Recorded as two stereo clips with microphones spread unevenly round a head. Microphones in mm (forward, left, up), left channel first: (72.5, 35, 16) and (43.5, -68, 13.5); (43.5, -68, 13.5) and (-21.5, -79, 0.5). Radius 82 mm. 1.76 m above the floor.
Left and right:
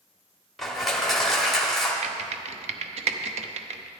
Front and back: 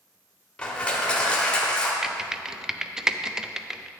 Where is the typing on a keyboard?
90° right, 0.6 m.